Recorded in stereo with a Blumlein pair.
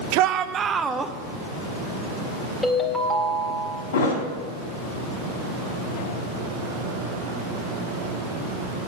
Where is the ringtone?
10° left, 2.0 m.